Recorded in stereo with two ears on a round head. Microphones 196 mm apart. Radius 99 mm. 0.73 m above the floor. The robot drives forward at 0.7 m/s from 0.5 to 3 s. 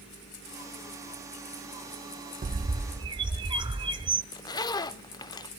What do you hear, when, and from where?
2.4 s a bird: 35° right (ahead or behind), 0.6 m; by 4.2 s 20° right (ahead or behind), 0.9 m
4.3 s a zipper: 20° left (ahead or behind), 0.5 m